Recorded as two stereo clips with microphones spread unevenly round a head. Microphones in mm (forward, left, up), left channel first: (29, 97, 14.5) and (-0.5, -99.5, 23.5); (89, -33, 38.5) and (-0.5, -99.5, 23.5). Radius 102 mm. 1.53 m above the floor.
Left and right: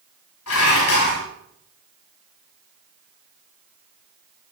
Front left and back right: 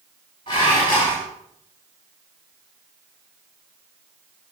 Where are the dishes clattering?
100° left, 7 m.